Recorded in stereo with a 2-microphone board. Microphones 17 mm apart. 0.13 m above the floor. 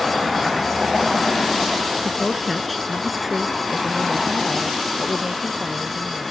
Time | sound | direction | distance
2.0 | a woman speaking | 15° left (ahead or behind) | ?